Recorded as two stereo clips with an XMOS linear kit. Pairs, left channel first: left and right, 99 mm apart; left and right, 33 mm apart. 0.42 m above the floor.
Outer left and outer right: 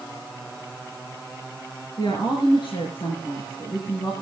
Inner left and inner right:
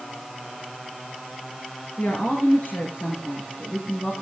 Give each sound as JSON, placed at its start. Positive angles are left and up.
{"t": 2.0, "sound": "a woman speaking", "side_deg": 55, "distance_m": 6.0}